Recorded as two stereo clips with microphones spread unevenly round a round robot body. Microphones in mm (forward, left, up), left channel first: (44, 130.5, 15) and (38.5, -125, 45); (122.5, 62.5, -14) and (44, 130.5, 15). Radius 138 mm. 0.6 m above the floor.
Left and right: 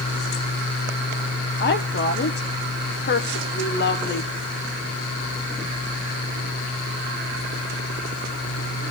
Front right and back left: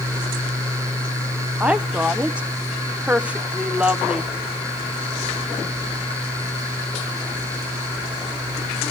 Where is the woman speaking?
50° left, 1.2 m.